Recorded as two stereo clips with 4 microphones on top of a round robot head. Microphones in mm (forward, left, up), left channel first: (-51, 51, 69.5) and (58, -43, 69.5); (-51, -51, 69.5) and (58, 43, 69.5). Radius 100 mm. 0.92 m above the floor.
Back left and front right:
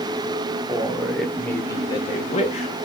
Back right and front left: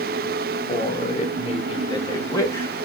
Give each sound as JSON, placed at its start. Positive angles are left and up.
{"t": 0.7, "sound": "a man speaking", "azimuth_deg": -115, "distance_m": 1.3}